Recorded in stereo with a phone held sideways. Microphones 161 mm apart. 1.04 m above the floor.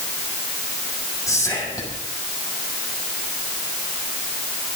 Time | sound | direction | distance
1.3 | whispering | 20° left (ahead or behind) | 5.5 m